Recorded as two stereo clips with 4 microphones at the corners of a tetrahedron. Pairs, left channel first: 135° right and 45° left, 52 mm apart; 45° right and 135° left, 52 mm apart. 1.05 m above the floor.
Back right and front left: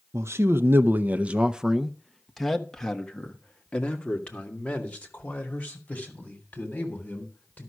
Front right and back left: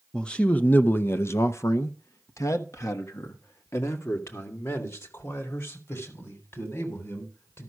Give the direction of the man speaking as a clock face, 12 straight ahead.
11 o'clock.